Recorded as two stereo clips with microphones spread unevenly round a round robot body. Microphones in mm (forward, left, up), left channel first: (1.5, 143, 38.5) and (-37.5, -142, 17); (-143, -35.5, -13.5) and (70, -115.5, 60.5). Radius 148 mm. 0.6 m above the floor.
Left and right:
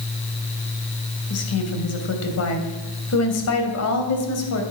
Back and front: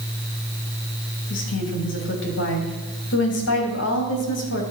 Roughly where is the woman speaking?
Behind left.